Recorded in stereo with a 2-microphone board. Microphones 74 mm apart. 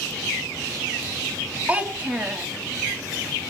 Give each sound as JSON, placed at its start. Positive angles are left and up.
{"t": 1.7, "sound": "a child speaking", "side_deg": -15, "distance_m": 1.8}